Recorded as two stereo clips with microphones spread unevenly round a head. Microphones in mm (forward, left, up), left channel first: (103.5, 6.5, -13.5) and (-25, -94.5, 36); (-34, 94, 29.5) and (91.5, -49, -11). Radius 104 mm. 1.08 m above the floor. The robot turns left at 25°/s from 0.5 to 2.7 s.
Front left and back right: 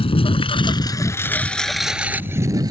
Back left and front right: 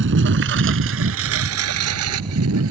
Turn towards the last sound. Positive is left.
turn(degrees=-80)